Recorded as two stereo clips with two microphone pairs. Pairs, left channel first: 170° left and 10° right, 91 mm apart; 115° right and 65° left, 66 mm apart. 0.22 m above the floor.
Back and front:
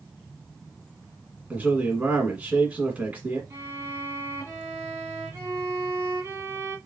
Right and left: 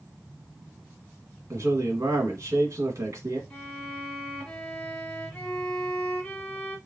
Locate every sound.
1.5 s a man speaking: 65° left, 1.7 m
3.5 s a violin: 50° right, 1.1 m